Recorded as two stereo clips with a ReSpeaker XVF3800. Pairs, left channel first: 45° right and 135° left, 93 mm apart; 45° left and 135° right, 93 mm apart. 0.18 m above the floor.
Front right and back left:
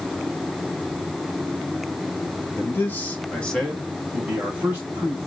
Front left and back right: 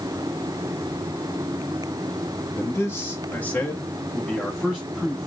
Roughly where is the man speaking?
Ahead.